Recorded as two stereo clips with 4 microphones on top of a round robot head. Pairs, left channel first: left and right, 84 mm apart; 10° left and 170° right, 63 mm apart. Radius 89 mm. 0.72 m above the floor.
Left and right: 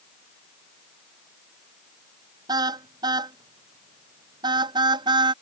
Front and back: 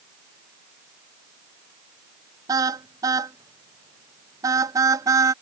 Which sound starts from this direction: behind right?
A car horn, at 2.5 s.